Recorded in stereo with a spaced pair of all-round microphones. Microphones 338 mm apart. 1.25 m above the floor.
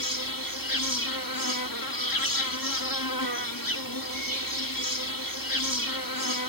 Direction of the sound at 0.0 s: 75° left (ahead or behind).